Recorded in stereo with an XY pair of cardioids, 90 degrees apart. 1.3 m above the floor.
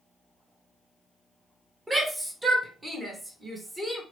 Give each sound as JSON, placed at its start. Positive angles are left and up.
{"t": 1.9, "sound": "a shout", "azimuth_deg": -25, "distance_m": 1.3}